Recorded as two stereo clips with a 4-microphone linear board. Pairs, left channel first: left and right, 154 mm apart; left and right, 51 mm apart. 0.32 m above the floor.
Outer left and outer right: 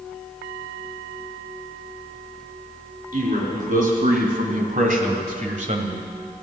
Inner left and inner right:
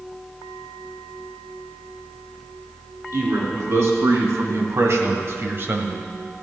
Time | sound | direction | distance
3.1 | a man speaking | 55° right (ahead or behind) | 4 m